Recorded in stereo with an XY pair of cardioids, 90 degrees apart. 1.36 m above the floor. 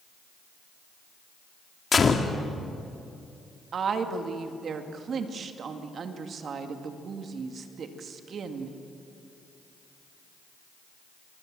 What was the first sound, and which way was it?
A gunshot, 40° left.